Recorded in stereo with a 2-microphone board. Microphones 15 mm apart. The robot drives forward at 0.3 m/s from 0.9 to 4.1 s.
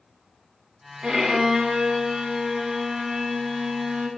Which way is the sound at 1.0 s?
65° right (ahead or behind).